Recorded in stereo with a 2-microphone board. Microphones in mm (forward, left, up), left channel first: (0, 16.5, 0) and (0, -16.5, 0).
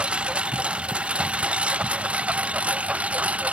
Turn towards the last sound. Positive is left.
turn(degrees=-40)  # may be behind; listen again after turning